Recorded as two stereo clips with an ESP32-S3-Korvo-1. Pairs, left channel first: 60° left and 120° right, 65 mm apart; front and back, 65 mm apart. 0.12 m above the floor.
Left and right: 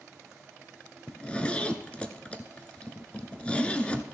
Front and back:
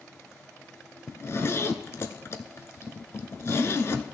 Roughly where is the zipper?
Ahead.